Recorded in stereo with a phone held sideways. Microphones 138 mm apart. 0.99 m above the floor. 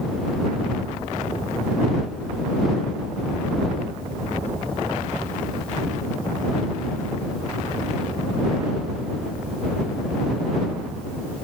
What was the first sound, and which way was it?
Only background noise.